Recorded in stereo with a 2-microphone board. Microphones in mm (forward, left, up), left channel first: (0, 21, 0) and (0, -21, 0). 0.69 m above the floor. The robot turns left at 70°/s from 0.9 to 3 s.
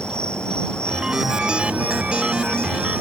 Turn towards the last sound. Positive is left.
turn(degrees=-125)